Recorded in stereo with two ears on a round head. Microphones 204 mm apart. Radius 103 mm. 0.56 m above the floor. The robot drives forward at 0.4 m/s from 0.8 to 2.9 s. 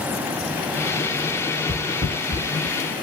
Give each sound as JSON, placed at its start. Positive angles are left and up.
{"t": 1.7, "sound": "footsteps", "side_deg": -30, "distance_m": 1.9}